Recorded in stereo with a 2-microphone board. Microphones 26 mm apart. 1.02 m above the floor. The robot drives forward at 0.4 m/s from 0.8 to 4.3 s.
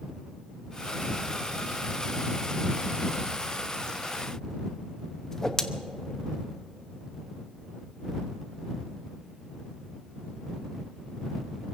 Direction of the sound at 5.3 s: 25° left (ahead or behind).